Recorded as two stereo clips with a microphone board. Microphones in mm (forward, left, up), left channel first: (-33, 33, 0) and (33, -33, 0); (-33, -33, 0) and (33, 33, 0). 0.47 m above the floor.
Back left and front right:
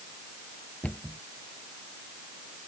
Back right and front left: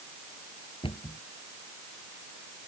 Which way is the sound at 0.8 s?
150° right.